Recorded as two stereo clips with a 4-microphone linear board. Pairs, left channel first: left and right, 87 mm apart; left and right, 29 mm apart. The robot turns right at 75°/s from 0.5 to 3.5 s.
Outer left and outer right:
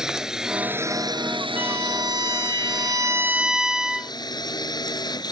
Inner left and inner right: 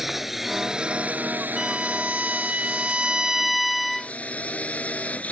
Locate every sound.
0.0 s a drone: 175° right; by 5.3 s 50° left
1.6 s a violin: 155° right; by 4.1 s 10° right